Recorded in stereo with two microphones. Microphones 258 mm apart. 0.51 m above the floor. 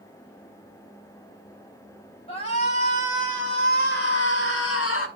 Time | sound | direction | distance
2.3 | a shout | 25° left (ahead or behind) | 3 m